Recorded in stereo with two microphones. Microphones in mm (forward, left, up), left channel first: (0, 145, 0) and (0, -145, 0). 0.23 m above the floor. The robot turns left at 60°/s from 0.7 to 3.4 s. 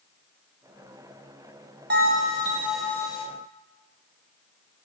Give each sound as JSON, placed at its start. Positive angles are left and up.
{"t": 1.9, "sound": "a bell", "azimuth_deg": -125, "distance_m": 0.6}